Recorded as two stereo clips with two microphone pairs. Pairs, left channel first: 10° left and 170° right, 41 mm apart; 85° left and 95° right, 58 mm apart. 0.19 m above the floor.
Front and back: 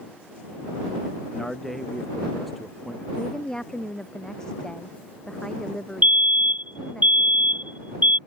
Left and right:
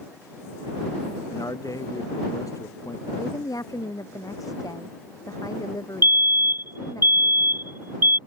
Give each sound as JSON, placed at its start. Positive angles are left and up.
{"t": 1.3, "sound": "a man speaking", "azimuth_deg": 95}
{"t": 3.2, "sound": "a woman speaking", "azimuth_deg": 85}
{"t": 6.0, "sound": "a fire alarm", "azimuth_deg": -135}